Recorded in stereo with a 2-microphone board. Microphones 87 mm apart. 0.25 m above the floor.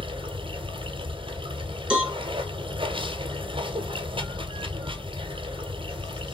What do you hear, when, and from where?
0.0 s running water: 80° right, 1.1 m
1.9 s a cowbell: 10° right (ahead or behind), 2 m